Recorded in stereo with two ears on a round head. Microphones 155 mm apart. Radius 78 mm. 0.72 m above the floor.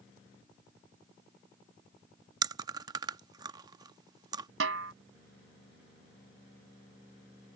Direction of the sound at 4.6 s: 80° right.